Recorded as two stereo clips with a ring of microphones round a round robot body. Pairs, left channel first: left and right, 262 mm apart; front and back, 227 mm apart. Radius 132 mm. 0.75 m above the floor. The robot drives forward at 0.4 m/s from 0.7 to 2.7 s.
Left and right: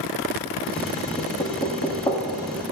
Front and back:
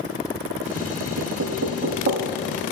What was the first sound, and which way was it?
Knocking, 155° left.